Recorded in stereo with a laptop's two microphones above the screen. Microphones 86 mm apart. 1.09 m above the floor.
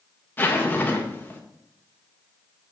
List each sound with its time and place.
0.4 s a zipper: 25° left (ahead or behind), 1.3 m